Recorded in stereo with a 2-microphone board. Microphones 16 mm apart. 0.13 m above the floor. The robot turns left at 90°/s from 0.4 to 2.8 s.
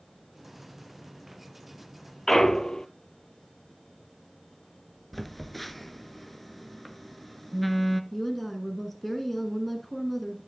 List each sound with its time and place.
2.3 s a clunk: 155° left, 0.6 m; by 2.9 s 105° left, 0.6 m
5.1 s a phone buzzing: 5° left (ahead or behind), 0.7 m
8.1 s a woman speaking: 15° left (ahead or behind), 1.2 m